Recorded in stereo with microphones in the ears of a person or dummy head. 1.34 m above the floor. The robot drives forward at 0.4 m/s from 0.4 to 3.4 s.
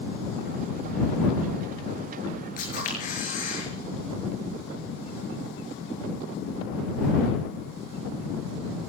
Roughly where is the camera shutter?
Left.